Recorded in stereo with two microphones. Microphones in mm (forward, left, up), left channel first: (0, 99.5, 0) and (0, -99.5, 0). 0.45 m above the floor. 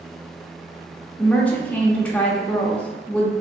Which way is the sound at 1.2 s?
5° left (ahead or behind).